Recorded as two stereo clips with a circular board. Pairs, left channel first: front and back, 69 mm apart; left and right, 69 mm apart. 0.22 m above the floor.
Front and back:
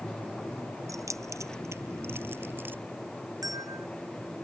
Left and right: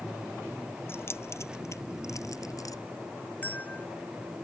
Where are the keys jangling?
145° left; by 2.8 s 120° left.